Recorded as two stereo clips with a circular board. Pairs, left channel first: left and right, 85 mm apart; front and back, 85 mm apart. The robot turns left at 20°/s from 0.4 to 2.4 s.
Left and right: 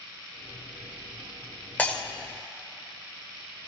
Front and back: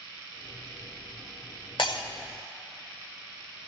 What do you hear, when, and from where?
1.8 s breaking glass: 20° left, 1.1 m; by 2.0 s 15° left, 1.1 m